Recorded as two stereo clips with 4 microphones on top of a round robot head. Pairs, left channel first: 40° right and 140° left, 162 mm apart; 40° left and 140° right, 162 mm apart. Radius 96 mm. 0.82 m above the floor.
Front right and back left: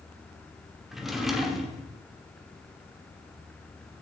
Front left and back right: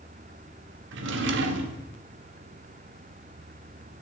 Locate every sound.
0.9 s a drawer: 130° right, 1.1 m